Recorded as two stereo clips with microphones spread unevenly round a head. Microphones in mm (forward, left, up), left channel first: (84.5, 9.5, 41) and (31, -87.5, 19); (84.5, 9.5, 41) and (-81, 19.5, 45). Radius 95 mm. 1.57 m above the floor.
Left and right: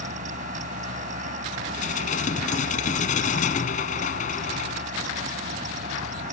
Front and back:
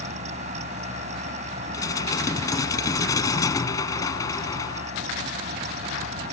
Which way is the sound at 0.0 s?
130° right.